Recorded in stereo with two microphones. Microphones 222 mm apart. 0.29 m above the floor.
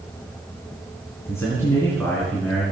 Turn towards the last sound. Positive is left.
turn(degrees=5)  # may be behind; listen again after turning